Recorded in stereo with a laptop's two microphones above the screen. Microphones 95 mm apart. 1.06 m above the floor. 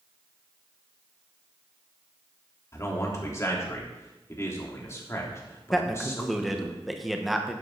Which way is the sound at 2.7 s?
30° left (ahead or behind).